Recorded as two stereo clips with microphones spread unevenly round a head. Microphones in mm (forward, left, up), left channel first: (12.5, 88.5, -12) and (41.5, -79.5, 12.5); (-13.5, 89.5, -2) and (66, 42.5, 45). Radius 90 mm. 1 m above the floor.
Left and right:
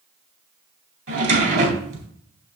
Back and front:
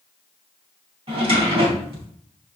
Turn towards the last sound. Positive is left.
turn(degrees=-60)